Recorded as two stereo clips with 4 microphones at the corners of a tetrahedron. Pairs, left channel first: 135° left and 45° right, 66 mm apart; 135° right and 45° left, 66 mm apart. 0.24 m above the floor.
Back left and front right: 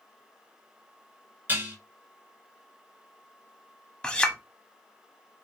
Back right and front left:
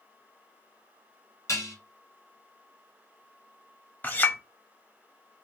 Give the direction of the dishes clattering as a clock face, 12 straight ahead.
3 o'clock.